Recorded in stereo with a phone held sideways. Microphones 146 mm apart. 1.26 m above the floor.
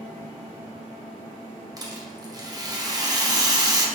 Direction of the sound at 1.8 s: 25° right (ahead or behind).